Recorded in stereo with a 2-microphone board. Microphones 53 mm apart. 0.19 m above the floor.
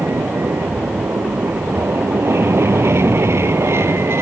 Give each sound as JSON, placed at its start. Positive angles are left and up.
{"t": 0.0, "sound": "an aircraft", "side_deg": -60}